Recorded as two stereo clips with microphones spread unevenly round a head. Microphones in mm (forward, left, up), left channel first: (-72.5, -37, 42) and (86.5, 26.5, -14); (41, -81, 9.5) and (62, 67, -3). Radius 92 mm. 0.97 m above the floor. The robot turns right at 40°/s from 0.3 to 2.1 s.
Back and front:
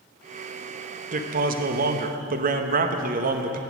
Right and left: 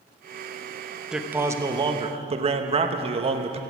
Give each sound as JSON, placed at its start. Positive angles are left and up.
{"t": 1.1, "sound": "a man speaking", "azimuth_deg": 0, "distance_m": 0.9}